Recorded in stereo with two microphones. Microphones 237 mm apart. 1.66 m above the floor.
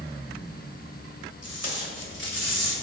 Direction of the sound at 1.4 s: 85° left.